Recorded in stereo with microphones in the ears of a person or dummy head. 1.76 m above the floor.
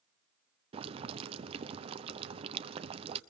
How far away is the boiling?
About 0.8 m.